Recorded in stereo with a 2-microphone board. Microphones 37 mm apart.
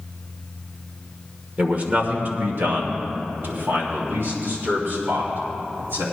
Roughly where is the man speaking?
Right.